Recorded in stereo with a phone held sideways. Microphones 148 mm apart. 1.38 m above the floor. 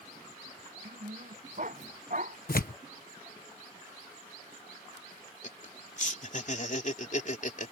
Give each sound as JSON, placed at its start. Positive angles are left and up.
{"t": 0.8, "sound": "a dog barking", "side_deg": -60}
{"t": 2.5, "sound": "tearing paper", "side_deg": 70}
{"t": 5.4, "sound": "laughter", "side_deg": 55}